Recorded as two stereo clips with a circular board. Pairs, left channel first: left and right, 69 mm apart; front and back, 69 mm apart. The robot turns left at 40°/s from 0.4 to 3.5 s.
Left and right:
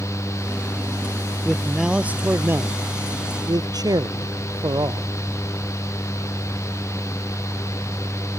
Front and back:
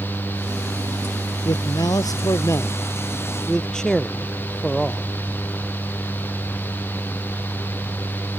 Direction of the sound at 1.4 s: Straight ahead.